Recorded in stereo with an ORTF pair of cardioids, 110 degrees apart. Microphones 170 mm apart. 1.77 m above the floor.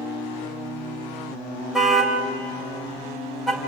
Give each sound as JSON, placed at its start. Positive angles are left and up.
{"t": 1.7, "sound": "a car horn", "azimuth_deg": 0, "distance_m": 4.0}